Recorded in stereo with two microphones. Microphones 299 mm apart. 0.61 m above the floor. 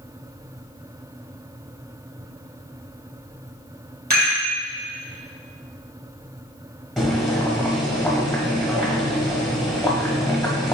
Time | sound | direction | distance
4.1 | a rattle | 65° right (ahead or behind) | 3 m
7.0 | boiling | centre (ahead or behind) | 1.4 m